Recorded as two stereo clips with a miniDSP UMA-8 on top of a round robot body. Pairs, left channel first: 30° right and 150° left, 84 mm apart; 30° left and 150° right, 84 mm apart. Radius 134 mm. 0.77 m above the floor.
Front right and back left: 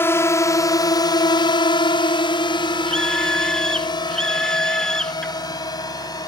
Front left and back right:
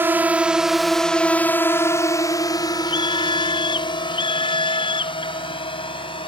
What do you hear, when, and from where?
0.0 s a drone: 85° right; by 6.3 s 15° left
2.9 s a scream: 55° left